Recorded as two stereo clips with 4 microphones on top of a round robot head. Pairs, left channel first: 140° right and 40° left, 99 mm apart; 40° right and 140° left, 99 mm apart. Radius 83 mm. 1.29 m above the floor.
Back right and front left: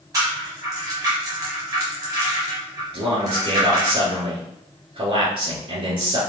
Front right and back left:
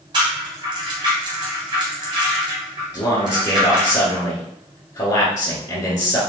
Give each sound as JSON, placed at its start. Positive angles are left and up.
{"t": 0.1, "sound": "a rattle", "azimuth_deg": 95, "distance_m": 0.7}
{"t": 2.9, "sound": "a man speaking", "azimuth_deg": 10, "distance_m": 1.6}